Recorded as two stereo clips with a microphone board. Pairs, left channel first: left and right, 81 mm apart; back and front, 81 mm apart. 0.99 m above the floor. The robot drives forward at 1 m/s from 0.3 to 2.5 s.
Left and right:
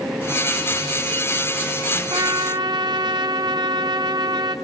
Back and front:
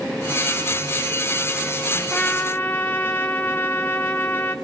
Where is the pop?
No pop in this recording.